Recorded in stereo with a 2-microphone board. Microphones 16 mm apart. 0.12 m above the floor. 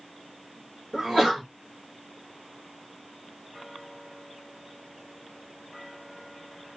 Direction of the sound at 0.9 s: 25° right (ahead or behind).